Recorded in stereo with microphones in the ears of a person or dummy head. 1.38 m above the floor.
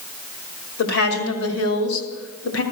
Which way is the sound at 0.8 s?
80° left.